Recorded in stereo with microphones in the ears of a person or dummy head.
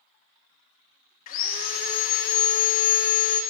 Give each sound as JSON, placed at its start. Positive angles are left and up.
{"t": 1.3, "sound": "sawing", "side_deg": 45, "distance_m": 0.5}